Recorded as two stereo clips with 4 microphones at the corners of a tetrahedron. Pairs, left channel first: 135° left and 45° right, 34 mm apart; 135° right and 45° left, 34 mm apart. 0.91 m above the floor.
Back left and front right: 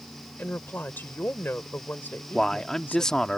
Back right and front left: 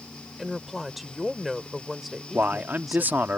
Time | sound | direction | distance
0.4 | a woman speaking | 135° left | ?
2.3 | a man speaking | 60° left | ?